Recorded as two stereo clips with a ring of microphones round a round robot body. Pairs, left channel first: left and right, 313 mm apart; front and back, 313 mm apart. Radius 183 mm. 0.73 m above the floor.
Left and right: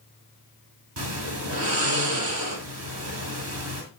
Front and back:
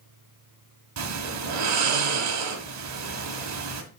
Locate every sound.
1.0 s snoring: 145° right, 1.6 m